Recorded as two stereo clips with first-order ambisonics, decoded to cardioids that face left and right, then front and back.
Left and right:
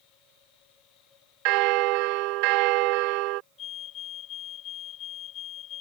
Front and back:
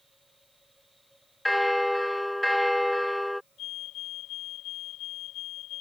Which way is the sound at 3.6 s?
40° left.